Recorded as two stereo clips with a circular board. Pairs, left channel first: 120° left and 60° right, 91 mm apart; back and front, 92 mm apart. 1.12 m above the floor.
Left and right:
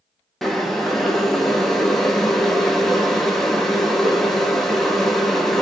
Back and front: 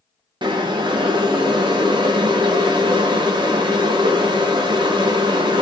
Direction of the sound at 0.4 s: 30° left.